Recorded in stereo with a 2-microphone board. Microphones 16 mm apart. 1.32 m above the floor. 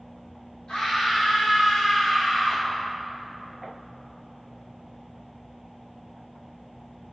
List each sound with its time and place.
0.7 s a scream: 65° left (ahead or behind), 3.5 m